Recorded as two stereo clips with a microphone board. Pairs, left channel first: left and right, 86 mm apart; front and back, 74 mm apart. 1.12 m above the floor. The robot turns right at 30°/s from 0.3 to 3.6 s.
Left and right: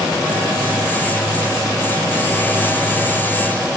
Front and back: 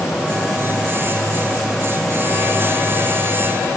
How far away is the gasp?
I don't hear a gasp.